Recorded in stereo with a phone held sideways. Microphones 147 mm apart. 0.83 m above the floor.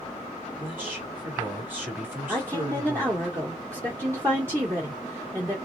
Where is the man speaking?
10° right (ahead or behind), 2 m.